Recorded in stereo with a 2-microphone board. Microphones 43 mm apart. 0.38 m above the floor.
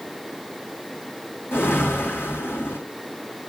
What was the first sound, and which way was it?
A whoosh, 60° left (ahead or behind).